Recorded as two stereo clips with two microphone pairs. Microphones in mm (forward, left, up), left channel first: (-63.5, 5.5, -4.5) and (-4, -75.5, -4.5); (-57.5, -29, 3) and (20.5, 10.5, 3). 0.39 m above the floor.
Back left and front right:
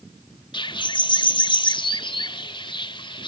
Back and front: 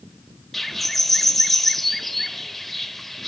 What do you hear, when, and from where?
0.5 s a bird: 120° left, 0.8 m